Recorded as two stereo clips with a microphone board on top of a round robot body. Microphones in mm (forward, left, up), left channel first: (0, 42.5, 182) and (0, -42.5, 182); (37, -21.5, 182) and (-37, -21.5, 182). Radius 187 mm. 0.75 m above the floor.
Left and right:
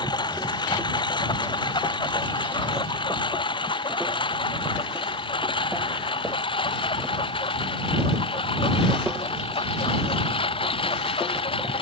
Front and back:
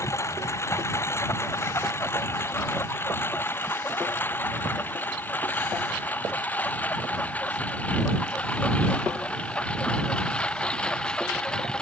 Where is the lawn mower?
55° left; by 11.8 s 80° left.